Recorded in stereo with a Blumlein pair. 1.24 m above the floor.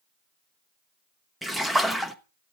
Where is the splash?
Straight ahead, 0.8 m.